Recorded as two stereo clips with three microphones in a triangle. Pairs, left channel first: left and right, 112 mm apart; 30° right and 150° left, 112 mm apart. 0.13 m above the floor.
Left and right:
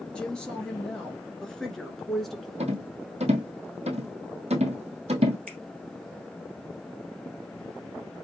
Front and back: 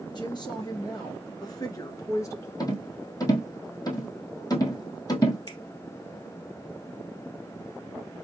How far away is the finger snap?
About 2.5 m.